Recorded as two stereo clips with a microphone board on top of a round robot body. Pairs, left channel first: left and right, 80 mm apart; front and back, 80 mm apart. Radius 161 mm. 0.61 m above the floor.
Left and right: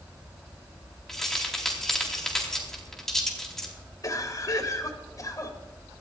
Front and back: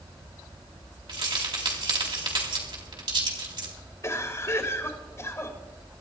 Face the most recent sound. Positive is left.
turn(degrees=50)